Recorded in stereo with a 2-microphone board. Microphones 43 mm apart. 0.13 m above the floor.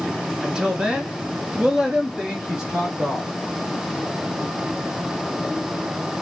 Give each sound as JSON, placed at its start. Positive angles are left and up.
{"t": 0.4, "sound": "a woman speaking", "side_deg": -15, "distance_m": 1.2}